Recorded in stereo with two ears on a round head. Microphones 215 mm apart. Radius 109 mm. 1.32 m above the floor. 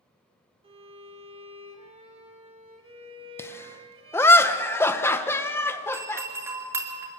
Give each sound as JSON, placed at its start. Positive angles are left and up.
{"t": 0.6, "sound": "a violin", "side_deg": -25, "distance_m": 2.0}
{"t": 3.4, "sound": "laughter", "side_deg": 10, "distance_m": 1.3}
{"t": 5.9, "sound": "a doorbell", "side_deg": -10, "distance_m": 2.5}